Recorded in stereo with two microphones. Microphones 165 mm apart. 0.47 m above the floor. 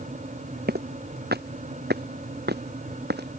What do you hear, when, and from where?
0.7 s footsteps: 75° right (ahead or behind); by 3.4 s 80° right